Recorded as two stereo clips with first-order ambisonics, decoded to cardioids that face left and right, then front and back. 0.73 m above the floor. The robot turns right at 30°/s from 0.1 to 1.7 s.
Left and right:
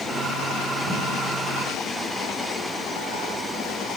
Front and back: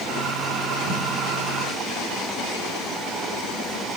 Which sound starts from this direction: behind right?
Footsteps, at 0.9 s.